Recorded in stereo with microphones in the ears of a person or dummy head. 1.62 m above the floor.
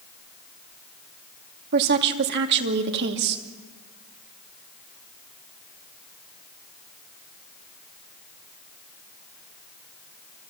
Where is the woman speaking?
55° right (ahead or behind), 2.5 m.